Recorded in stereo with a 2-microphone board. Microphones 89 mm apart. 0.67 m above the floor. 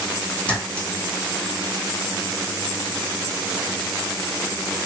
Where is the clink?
15° left (ahead or behind), 1.6 m.